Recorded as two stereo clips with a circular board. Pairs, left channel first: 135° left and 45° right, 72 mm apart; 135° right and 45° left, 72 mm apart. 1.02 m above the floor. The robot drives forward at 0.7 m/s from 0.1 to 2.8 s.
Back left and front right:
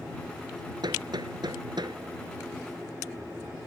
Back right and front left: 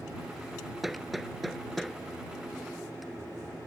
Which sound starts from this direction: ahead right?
Hammering, at 0.8 s.